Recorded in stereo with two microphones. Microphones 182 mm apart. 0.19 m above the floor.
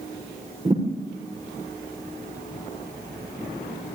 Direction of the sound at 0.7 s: 35° right (ahead or behind).